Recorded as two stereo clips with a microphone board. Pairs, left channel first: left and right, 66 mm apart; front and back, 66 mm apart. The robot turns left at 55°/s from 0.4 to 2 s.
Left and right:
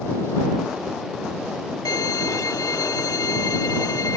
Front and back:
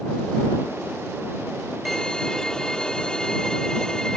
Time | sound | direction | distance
1.9 | a violin | 90° left | ?